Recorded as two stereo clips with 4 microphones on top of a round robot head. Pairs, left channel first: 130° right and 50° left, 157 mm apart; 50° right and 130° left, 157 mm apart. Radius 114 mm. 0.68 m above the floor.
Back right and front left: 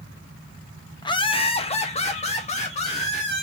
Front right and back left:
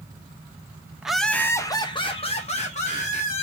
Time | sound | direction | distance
1.0 | laughter | 150° right | 0.7 m